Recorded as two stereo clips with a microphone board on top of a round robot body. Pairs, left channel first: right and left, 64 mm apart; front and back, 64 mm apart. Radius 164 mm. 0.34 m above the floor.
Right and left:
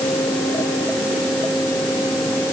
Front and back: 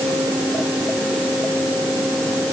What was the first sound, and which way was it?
Only background noise.